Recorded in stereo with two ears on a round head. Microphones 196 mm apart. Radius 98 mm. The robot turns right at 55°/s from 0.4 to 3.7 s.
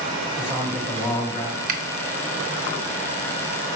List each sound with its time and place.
0.4 s a man speaking: 25° right, 2.5 m; by 1.6 s 40° left, 2.5 m
1.7 s a finger snap: 40° right (ahead or behind), 0.8 m; by 1.8 s 45° right (ahead or behind), 0.8 m